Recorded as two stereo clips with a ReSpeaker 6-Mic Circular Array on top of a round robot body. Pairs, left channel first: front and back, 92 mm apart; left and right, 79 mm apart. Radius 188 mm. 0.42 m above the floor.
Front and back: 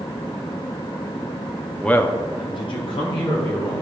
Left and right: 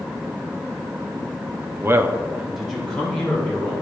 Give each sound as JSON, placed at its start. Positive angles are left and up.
{"t": 1.8, "sound": "a man speaking", "azimuth_deg": -80, "distance_m": 0.9}